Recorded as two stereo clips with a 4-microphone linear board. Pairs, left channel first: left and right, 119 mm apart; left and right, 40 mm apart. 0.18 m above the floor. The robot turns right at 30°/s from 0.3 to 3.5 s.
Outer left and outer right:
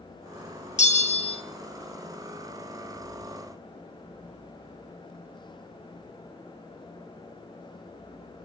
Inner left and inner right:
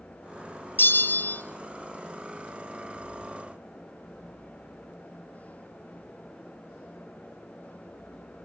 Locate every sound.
0.8 s a bell: 70° left (ahead or behind), 0.6 m; by 1.4 s 55° left (ahead or behind), 0.6 m